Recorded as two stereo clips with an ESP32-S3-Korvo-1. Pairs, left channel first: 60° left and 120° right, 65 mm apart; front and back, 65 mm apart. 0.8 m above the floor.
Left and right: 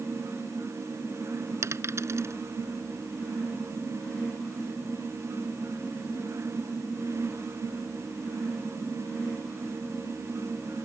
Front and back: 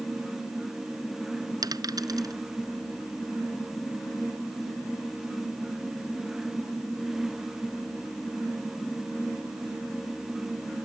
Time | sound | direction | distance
1.6 | a dropped coin | 165° right | ?